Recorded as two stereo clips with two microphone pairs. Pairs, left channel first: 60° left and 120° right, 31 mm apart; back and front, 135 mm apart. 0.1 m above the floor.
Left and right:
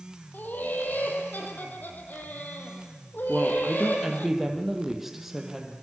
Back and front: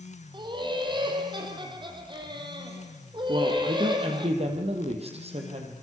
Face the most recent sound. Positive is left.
turn(degrees=-40)